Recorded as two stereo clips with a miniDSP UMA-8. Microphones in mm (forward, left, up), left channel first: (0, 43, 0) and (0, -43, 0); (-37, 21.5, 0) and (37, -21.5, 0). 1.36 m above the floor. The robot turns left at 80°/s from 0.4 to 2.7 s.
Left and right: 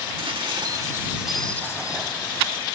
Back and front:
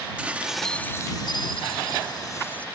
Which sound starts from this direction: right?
Dishes clattering, at 0.2 s.